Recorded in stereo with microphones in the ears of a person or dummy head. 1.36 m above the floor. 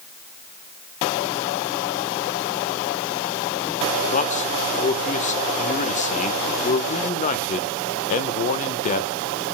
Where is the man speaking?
40° left (ahead or behind), 1.2 m.